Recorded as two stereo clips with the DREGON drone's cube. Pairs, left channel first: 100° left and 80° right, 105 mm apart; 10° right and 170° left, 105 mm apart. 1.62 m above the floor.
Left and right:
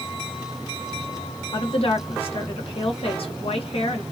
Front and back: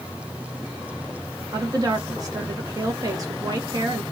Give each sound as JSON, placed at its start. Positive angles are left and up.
{"t": 1.5, "sound": "a woman speaking", "azimuth_deg": 120, "distance_m": 1.2}